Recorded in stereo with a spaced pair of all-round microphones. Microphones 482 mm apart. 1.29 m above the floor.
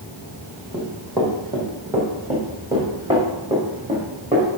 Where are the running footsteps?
5° left (ahead or behind), 3 m; by 4.5 s 15° right (ahead or behind), 4.5 m.